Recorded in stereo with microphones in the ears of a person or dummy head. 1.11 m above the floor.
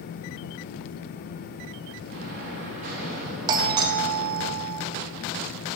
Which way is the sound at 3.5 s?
25° right (ahead or behind).